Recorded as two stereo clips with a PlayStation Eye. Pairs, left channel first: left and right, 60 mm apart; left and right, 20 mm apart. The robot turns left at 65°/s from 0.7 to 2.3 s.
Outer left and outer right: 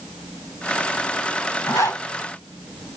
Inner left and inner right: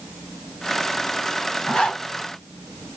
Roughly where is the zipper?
Left.